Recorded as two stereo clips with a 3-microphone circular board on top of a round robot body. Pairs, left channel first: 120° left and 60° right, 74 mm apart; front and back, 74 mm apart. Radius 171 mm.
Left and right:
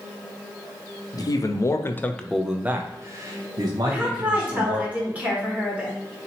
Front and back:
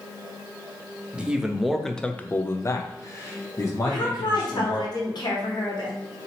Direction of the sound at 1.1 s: 105° left.